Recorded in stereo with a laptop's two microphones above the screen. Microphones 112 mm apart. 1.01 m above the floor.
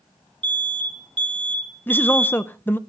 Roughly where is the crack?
No crack in this recording.